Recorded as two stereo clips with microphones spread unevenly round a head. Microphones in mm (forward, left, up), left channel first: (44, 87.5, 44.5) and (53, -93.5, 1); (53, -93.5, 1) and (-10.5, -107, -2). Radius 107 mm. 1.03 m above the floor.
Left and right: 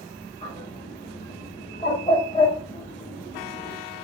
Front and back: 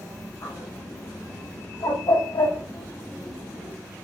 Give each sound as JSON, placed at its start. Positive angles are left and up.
{"t": 0.4, "sound": "a bird", "azimuth_deg": 30, "distance_m": 5.5}